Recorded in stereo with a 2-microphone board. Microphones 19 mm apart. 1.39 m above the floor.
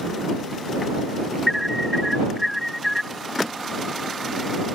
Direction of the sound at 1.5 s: Centre (ahead or behind).